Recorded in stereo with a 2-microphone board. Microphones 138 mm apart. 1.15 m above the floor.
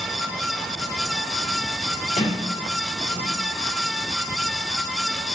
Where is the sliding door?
70° left (ahead or behind), 2.5 m.